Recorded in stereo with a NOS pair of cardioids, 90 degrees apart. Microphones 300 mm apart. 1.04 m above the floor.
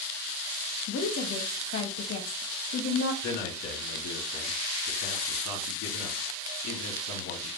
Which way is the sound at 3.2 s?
70° left.